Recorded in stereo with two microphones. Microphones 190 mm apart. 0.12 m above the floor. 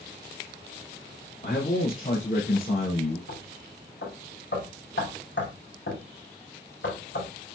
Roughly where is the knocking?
Left.